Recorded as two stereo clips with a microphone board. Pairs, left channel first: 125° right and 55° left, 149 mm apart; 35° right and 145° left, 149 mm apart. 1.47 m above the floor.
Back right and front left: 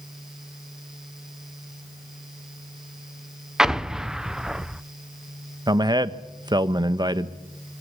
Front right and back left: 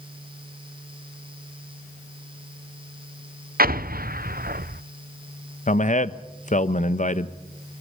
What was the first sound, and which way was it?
An explosion, 140° left.